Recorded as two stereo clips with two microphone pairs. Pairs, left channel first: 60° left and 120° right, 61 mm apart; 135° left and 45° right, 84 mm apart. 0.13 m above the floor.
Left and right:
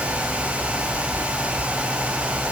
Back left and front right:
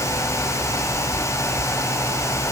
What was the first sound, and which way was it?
Only background noise.